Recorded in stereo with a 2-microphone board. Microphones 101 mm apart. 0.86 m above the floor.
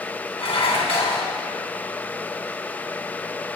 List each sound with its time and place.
0.4 s dishes clattering: 80° left, 2.5 m